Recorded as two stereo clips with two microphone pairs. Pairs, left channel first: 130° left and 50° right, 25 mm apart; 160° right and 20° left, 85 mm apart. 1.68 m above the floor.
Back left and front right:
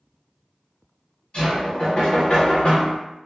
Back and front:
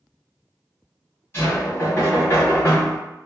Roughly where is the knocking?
Behind left.